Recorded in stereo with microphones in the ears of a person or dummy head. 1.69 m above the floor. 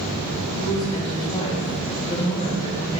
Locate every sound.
0.6 s a woman speaking: 30° left (ahead or behind), 2.5 m